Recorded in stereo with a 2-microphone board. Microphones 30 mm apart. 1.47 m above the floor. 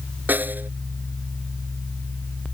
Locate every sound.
0.3 s a snare drum: 75° right (ahead or behind)